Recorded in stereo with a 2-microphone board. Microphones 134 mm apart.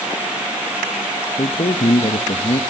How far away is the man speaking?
About 0.7 m.